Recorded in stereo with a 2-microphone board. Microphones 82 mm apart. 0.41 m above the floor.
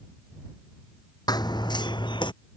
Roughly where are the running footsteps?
Left.